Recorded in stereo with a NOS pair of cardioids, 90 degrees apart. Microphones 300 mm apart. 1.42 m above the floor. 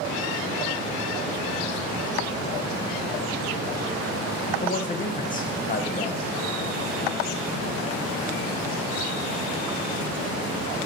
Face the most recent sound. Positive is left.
turn(degrees=30)